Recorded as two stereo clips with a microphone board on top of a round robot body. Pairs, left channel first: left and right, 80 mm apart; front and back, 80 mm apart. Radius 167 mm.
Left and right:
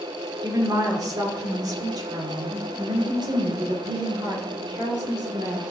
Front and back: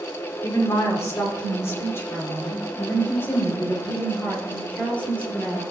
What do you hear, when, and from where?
0.4 s a woman speaking: 45° right, 3 m; by 5.6 s 70° right, 6 m